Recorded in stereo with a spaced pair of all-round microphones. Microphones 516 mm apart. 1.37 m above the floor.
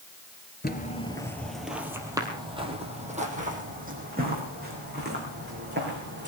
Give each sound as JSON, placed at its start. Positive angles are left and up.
{"t": 0.6, "sound": "footsteps", "side_deg": 20, "distance_m": 1.6}